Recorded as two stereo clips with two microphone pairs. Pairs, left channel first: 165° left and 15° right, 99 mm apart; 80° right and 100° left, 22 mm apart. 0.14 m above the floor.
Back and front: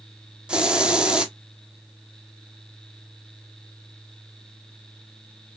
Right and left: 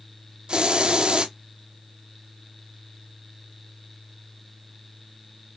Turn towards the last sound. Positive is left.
turn(degrees=65)